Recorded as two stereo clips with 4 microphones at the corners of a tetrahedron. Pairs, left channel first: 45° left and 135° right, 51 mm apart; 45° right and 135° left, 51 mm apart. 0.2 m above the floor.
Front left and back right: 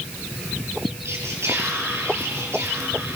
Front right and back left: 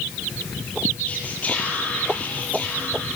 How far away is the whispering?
About 5.5 m.